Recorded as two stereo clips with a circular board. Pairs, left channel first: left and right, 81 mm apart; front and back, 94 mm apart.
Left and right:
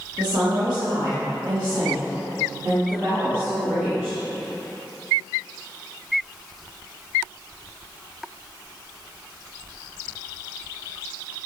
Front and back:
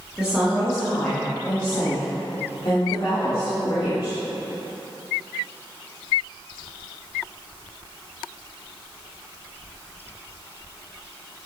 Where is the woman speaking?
100° right, 1.9 m; by 4.2 s 25° right, 3.5 m.